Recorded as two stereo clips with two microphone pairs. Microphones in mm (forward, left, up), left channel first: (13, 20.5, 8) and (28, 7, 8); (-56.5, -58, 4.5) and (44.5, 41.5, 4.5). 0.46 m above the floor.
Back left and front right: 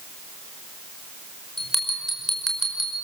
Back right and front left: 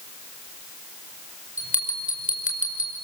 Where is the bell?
150° right, 5 m.